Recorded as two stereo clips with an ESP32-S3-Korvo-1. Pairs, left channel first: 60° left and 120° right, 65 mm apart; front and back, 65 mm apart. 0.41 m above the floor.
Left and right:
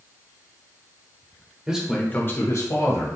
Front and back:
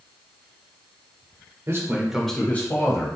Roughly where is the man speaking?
Behind.